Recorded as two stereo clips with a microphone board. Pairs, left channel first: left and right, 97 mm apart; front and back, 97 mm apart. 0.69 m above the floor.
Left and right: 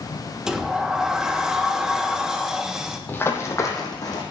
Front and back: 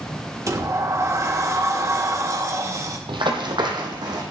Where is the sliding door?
165° right, 0.9 m.